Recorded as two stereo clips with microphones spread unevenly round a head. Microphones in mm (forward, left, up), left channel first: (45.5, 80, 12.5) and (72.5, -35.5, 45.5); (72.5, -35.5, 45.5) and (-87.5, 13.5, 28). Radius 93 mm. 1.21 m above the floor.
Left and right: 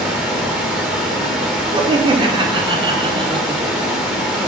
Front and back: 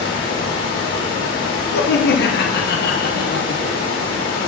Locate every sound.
0.0 s running water: 5° left, 3 m
1.7 s laughter: 20° right, 1.1 m